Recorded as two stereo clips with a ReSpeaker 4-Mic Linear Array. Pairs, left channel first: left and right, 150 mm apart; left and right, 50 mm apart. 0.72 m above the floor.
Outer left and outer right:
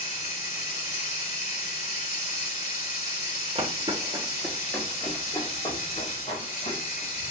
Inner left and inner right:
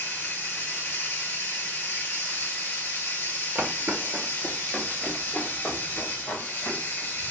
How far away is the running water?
About 1.8 m.